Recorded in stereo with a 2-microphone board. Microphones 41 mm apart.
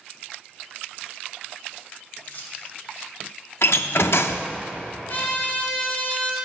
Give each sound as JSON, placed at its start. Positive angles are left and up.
{"t": 2.2, "sound": "keys jangling", "side_deg": 50, "distance_m": 2.0}
{"t": 3.6, "sound": "a door slam", "side_deg": 70, "distance_m": 0.5}
{"t": 5.1, "sound": "a trumpet", "side_deg": 55, "distance_m": 2.0}